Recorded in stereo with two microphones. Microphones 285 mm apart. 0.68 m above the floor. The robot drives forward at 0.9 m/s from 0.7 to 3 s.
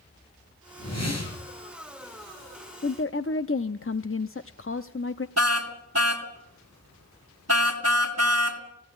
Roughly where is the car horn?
Right.